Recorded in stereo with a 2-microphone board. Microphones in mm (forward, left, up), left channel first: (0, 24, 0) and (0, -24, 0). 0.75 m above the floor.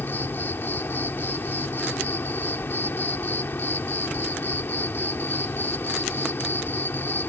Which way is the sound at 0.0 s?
50° left (ahead or behind).